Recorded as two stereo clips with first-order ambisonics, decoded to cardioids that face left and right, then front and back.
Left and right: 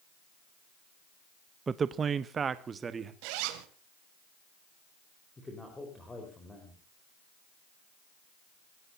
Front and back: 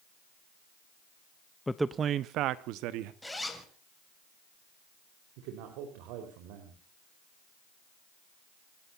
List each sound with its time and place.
1.7 s a man speaking: 60° right, 0.5 m; by 3.1 s 160° right, 1.4 m
3.2 s a zipper: 85° right, 2.5 m
5.4 s a man speaking: 170° left, 4 m